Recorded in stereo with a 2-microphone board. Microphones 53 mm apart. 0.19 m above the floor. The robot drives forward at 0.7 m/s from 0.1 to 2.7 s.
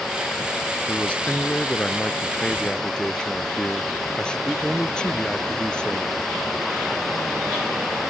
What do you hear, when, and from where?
0.9 s a man speaking: 25° left (ahead or behind); by 6.1 s 15° left (ahead or behind)